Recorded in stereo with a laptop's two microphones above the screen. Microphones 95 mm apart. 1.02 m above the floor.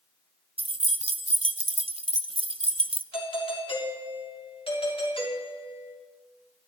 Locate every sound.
0.6 s keys jangling: 70° right (ahead or behind), 0.6 m
3.1 s a doorbell: 65° left (ahead or behind), 3 m